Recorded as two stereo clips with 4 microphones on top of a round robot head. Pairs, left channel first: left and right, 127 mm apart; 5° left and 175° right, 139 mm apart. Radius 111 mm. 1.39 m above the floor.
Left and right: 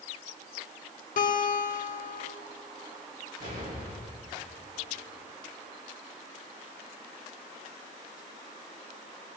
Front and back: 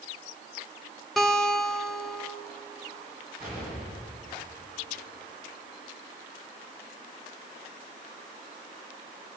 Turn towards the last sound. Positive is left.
turn(degrees=-95)